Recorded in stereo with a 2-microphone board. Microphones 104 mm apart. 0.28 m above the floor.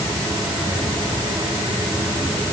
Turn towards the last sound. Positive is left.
No sound to turn to.